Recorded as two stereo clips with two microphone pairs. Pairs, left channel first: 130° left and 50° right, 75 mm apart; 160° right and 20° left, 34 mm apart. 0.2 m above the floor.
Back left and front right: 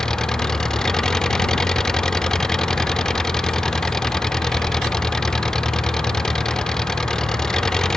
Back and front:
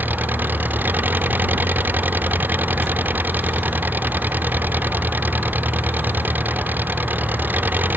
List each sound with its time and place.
0.0 s an engine running: 45° left